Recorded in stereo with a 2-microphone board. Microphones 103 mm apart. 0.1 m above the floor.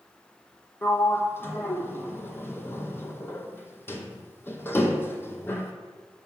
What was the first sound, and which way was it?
A sliding door, 20° left (ahead or behind).